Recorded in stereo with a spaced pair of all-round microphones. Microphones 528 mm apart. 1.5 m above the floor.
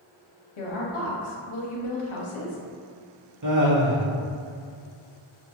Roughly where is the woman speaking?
Left.